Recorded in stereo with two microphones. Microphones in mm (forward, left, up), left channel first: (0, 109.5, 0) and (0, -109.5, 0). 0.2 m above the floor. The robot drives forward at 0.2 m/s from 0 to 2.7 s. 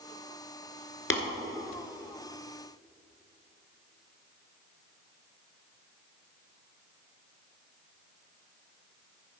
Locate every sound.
1.1 s tapping: 70° left (ahead or behind), 1.7 m